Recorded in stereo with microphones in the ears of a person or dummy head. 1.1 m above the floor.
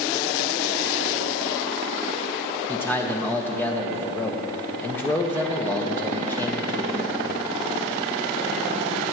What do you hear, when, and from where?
2.7 s a man speaking: 5° left (ahead or behind), 1.1 m